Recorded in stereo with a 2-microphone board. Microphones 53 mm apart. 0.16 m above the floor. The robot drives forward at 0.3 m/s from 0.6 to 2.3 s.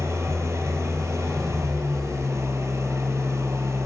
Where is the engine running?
70° right (ahead or behind), 1.5 m.